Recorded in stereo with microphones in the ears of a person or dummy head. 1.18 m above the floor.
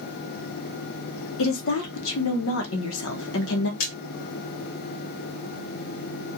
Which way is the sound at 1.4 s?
70° left (ahead or behind).